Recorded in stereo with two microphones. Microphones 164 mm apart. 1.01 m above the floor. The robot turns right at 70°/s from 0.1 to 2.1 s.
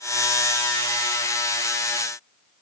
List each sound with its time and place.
Only background noise.